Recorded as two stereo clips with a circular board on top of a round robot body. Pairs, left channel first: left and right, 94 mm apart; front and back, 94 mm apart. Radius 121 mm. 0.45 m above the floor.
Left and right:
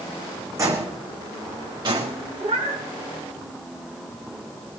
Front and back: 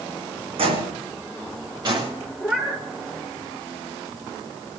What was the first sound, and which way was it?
Footsteps, 150° right.